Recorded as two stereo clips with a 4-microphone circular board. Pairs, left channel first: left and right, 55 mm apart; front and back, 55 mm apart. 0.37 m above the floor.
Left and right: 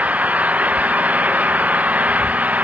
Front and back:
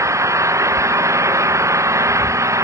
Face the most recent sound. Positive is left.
turn(degrees=-155)